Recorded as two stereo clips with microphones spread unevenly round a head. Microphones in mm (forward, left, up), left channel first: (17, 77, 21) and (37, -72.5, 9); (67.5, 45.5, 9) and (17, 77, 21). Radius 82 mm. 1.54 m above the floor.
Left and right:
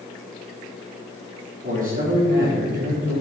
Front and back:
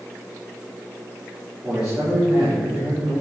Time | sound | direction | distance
1.6 | a man speaking | 125° right | 4 m